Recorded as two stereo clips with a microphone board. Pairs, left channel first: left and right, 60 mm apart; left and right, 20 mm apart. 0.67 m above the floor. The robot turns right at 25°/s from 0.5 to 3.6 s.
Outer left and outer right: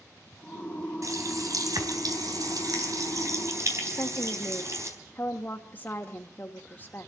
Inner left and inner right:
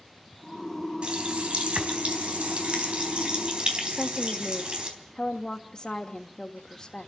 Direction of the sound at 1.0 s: 120° right.